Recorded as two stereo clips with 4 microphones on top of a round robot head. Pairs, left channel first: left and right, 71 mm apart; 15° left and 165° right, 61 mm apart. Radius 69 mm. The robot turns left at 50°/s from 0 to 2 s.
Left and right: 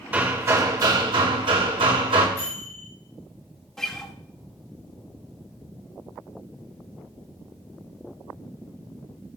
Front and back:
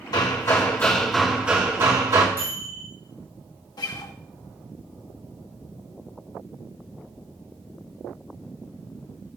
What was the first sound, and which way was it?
Hammering, 20° right.